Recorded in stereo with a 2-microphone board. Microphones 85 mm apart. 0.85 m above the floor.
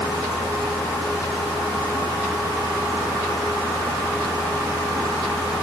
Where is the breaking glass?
I don't hear breaking glass.